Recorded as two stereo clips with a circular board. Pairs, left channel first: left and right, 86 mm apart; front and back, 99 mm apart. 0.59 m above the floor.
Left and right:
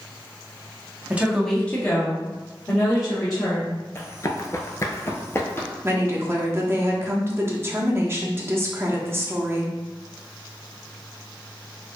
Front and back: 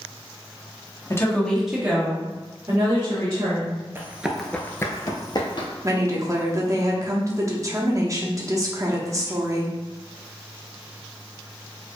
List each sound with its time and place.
1.1 s a woman speaking: 35° right, 0.9 m; by 3.8 s 135° left, 2.5 m
4.0 s running footsteps: 125° left, 0.6 m; by 5.7 s 30° left, 1.1 m
5.8 s a woman speaking: 140° right, 0.7 m